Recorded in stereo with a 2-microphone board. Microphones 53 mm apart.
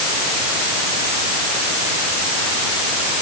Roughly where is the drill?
No drill in this recording.